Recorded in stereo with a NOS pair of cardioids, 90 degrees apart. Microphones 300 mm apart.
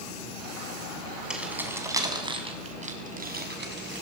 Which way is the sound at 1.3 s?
5° right.